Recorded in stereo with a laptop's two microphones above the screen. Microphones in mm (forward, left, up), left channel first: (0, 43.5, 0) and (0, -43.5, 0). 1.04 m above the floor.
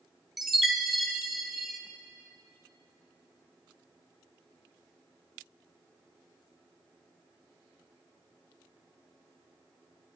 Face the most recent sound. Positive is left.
turn(degrees=-5)  # may be behind; listen again after turning